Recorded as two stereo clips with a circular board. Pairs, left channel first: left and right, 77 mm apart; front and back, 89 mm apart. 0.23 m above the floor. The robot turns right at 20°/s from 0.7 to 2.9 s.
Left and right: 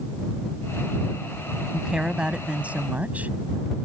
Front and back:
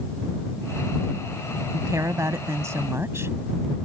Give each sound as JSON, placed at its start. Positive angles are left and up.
{"t": 1.7, "sound": "a woman speaking", "azimuth_deg": -165}